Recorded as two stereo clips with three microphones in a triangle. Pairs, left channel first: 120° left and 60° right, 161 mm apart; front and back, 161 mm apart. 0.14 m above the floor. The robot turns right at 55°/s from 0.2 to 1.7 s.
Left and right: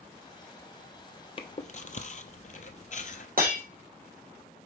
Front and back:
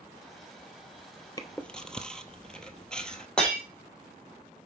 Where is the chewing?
65° left, 0.8 m; by 3.3 s 85° left, 0.8 m.